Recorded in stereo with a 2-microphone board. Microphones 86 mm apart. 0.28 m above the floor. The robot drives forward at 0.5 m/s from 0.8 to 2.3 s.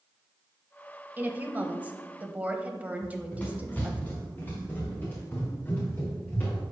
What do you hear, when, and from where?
1.2 s a woman speaking: 20° right (ahead or behind), 0.9 m
3.0 s running footsteps: 15° left (ahead or behind), 2 m; by 6.6 s 25° left (ahead or behind), 4 m